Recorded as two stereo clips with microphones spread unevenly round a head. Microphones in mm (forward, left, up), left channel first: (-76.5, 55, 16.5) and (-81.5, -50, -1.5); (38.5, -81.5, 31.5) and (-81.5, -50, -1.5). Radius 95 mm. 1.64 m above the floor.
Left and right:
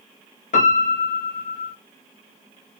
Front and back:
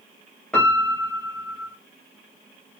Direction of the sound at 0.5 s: 70° left.